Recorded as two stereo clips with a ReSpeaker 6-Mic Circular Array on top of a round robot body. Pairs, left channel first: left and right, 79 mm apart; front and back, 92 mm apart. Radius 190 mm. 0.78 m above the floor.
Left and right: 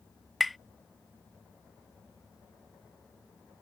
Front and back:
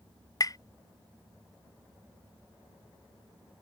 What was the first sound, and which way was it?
Tapping, straight ahead.